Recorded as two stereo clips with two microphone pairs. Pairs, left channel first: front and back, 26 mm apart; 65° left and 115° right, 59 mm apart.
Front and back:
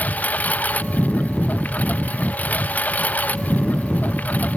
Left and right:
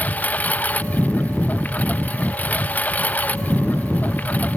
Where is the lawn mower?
5° left.